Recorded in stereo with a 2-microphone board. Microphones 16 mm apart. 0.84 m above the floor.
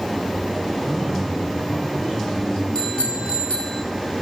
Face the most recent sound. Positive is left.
turn(degrees=70)  # may be behind; listen again after turning